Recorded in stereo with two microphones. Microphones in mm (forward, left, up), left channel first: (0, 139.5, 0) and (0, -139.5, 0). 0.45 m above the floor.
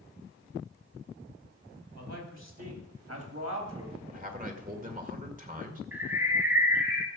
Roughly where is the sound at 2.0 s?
Right.